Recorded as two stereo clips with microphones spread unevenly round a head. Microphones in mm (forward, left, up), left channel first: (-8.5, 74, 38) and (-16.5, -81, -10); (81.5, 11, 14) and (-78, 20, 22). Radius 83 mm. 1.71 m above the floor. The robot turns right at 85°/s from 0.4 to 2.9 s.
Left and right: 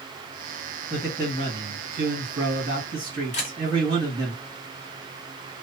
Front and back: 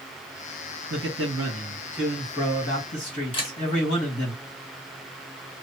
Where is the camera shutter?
55° left, 1.1 m.